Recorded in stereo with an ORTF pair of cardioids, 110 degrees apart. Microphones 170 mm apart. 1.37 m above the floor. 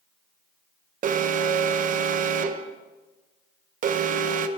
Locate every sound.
1.0 s an alarm: 50° right, 1.1 m